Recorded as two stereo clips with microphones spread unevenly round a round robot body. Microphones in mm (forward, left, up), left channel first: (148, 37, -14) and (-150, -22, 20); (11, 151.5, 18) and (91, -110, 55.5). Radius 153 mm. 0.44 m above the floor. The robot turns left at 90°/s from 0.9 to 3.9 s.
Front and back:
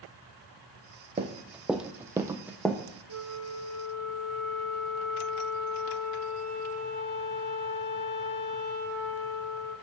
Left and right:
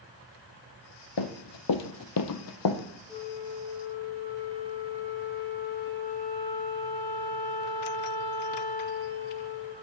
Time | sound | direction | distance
1.2 | running footsteps | 125° left | 1.0 m
3.1 | a flute | 35° left | 4.5 m